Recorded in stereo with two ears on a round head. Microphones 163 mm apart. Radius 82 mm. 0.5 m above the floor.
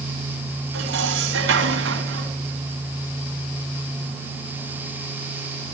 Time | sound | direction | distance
0.7 | dishes clattering | 80° right | 3.5 m